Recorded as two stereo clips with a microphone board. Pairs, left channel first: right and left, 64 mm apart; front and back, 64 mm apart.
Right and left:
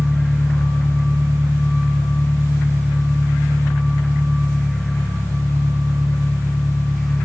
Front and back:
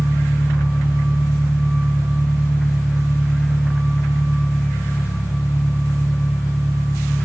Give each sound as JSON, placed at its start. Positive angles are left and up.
{"t": 0.0, "sound": "an engine running", "azimuth_deg": -20, "distance_m": 3.0}